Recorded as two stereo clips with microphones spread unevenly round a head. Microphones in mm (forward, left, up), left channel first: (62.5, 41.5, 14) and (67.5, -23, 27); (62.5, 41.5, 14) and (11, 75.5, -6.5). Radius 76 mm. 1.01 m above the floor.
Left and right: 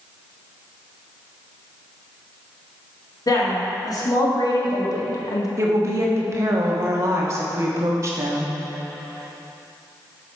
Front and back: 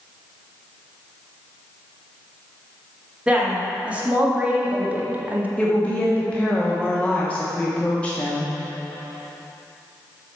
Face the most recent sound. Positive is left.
turn(degrees=-125)